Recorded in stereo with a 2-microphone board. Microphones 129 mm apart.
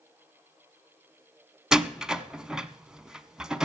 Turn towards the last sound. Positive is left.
turn(degrees=-5)  # may be behind; listen again after turning